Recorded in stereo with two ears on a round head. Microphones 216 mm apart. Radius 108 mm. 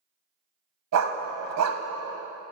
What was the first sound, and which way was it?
A dog barking, 80° right.